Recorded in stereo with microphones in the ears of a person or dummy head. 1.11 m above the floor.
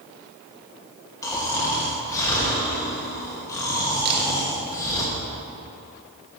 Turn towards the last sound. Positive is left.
turn(degrees=-55)  # may be behind; listen again after turning